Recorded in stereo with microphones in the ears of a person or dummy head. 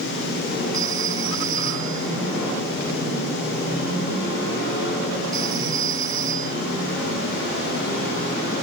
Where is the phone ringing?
25° right (ahead or behind).